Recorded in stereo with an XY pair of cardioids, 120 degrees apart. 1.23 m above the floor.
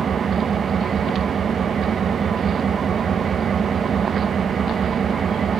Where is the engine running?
45° right, 0.7 m.